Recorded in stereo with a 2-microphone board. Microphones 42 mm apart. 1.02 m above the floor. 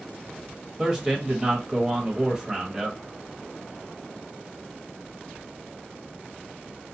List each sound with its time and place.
0.8 s a man speaking: 15° right (ahead or behind), 1.1 m